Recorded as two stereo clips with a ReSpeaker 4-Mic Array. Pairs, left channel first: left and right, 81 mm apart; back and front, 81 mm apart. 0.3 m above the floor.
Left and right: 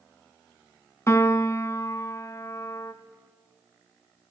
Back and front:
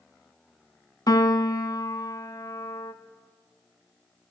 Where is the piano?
145° left, 0.7 m.